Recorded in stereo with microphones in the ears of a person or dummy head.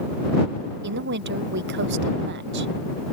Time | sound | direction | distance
0.8 | a woman speaking | 60° right (ahead or behind) | ?